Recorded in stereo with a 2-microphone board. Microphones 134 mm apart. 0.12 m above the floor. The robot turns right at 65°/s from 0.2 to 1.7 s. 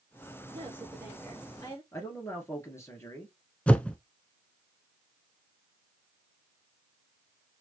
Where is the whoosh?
10° left (ahead or behind), 0.5 m.